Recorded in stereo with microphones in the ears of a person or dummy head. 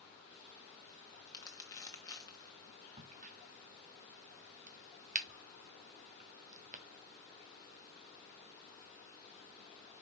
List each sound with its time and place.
1.3 s crumpling: 20° left (ahead or behind), 1.4 m
3.0 s a crack: 35° right (ahead or behind), 0.7 m